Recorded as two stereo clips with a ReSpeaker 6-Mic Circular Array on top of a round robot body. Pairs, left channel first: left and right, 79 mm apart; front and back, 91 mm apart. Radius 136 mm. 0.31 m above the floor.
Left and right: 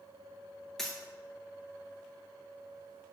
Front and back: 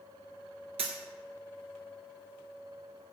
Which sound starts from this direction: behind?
A dropped coin, at 0.8 s.